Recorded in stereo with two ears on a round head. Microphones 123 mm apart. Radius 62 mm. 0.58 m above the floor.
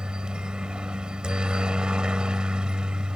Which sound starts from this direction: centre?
A helicopter, at 0.0 s.